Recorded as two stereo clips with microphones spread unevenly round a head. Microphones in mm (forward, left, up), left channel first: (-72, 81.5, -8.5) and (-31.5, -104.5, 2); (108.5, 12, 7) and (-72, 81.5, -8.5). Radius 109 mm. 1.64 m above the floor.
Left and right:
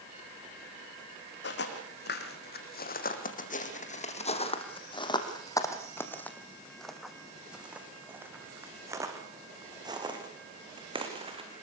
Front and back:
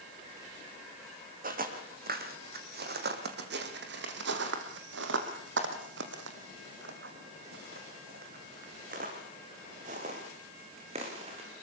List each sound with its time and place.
1.4 s footsteps: 120° left, 4 m; by 11.5 s 135° right, 5.5 m